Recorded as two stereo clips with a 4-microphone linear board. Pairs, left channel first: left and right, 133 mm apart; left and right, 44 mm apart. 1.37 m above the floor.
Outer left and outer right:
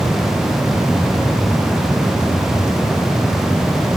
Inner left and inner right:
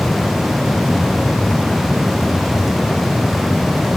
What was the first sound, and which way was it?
Only background noise.